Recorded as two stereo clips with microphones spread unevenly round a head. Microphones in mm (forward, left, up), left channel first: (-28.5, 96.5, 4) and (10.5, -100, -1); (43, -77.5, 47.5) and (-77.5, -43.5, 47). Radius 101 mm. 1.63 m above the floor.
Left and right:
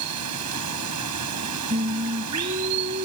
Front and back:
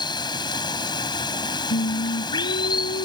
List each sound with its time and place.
0.0 s running water: 70° right
1.7 s singing: 25° right